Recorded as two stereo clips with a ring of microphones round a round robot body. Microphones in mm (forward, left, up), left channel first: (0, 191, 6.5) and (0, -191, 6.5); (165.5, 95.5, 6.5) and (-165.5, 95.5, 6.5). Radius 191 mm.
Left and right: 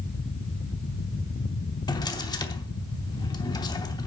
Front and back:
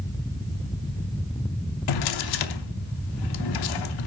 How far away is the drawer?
About 0.8 m.